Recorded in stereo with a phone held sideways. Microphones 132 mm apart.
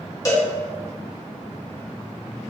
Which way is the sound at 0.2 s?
30° left (ahead or behind).